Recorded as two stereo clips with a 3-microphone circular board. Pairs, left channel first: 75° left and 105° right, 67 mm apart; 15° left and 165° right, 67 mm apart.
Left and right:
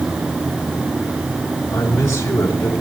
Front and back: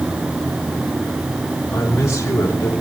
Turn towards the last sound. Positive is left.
turn(degrees=55)